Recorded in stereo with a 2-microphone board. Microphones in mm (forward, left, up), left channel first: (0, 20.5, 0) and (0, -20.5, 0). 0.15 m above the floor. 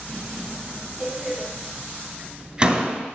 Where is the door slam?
25° right (ahead or behind), 1.7 m.